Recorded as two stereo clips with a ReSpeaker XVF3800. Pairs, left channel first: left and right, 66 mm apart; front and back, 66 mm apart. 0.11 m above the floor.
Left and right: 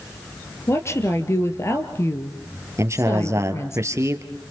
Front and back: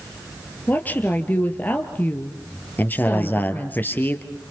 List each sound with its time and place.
0.7 s a woman speaking: 55° left, 2.5 m
2.8 s a man speaking: 55° right, 2 m